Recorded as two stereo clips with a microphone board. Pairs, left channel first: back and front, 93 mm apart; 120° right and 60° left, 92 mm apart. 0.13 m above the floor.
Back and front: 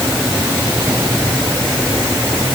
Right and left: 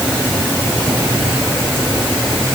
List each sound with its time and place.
Only background noise.